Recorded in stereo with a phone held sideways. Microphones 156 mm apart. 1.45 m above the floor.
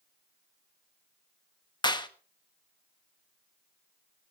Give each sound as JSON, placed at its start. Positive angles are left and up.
{"t": 1.8, "sound": "a clap", "side_deg": 30, "distance_m": 1.2}